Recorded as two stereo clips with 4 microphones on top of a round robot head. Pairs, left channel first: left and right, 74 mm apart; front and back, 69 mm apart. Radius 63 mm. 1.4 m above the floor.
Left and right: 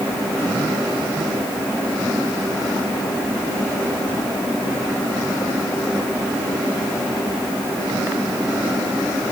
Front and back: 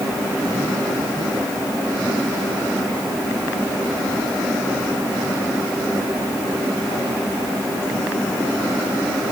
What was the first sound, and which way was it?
Only background noise.